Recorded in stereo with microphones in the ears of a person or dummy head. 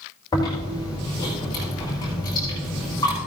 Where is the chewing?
20° left (ahead or behind), 4.5 m.